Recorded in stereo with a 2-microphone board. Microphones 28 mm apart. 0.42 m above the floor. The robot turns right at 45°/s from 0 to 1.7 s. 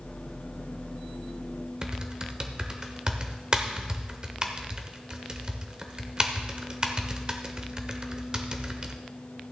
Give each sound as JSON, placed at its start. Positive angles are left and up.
{"t": 1.8, "sound": "typing on a keyboard", "side_deg": -30, "distance_m": 0.9}